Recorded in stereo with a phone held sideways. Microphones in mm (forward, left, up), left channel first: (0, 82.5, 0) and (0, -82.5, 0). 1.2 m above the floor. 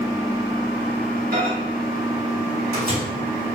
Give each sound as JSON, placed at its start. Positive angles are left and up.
{"t": 1.3, "sound": "a microwave", "side_deg": -65, "distance_m": 2.5}